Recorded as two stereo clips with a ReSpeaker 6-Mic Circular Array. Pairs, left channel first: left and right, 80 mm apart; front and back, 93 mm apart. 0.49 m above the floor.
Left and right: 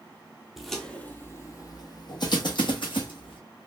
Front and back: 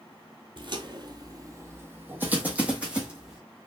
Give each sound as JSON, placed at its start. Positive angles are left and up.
{"t": 0.6, "sound": "footsteps", "azimuth_deg": -175, "distance_m": 0.7}